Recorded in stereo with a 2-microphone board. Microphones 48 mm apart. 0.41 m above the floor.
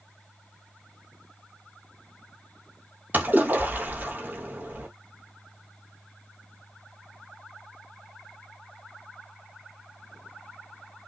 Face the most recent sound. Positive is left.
turn(degrees=-40)  # may be behind; listen again after turning